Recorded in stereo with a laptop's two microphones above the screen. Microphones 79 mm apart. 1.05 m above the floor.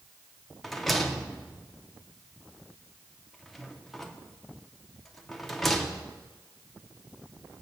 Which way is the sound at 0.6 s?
Centre (ahead or behind).